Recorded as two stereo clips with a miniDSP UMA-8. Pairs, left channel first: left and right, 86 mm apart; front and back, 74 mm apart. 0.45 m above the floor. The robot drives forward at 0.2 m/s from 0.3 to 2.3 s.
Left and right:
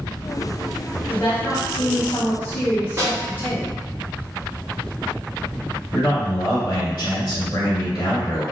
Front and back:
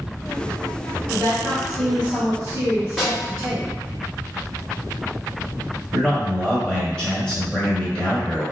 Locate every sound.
1.1 s a woman speaking: 100° left, 0.8 m; by 3.7 s 130° left, 0.9 m
3.0 s a snare drum: 85° right, 1.0 m
5.9 s a man speaking: 85° left, 1.1 m